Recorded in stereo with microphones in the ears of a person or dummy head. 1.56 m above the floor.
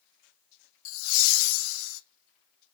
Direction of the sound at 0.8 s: 80° left.